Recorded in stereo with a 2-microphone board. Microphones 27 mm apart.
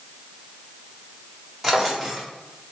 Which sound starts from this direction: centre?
A drawer, at 1.6 s.